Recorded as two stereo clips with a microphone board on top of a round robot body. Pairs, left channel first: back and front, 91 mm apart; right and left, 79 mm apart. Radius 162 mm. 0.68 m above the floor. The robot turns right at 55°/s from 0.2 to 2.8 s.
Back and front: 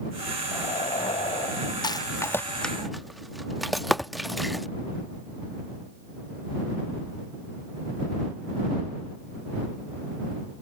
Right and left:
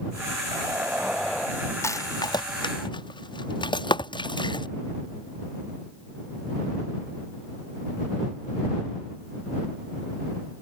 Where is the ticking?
120° right.